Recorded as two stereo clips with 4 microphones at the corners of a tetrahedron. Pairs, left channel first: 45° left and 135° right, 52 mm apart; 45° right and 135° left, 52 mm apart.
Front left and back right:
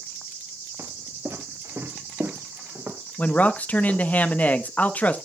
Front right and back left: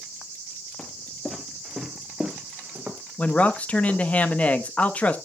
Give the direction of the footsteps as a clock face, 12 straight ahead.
4 o'clock.